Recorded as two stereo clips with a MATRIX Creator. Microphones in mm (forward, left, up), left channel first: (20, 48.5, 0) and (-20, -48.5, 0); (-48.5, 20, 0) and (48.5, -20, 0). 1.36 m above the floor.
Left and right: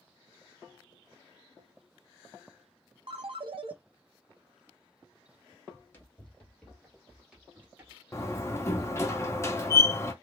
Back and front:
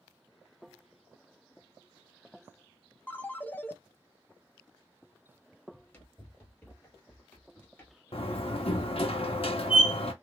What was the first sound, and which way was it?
A ringtone, 130° right.